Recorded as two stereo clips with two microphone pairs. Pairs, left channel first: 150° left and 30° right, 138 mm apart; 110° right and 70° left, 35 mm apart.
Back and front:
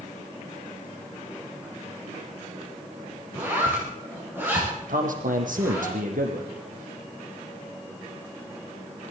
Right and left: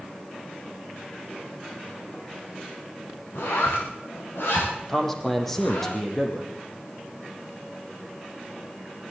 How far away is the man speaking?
About 5 m.